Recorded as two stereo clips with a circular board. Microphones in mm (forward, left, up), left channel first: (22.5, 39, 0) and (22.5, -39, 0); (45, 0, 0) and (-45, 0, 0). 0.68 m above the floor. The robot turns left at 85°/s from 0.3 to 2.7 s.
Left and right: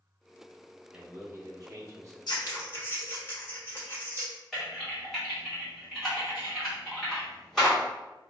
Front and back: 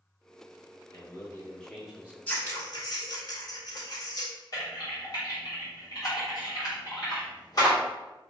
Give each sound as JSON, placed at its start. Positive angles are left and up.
{"t": 0.9, "sound": "a man speaking", "azimuth_deg": -20, "distance_m": 0.8}
{"t": 2.3, "sound": "scissors", "azimuth_deg": 70, "distance_m": 1.2}
{"t": 4.5, "sound": "typing on a keyboard", "azimuth_deg": 5, "distance_m": 1.5}